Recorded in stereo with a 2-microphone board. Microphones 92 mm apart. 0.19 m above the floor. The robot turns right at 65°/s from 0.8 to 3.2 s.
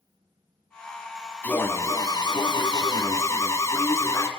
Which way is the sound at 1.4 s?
20° left.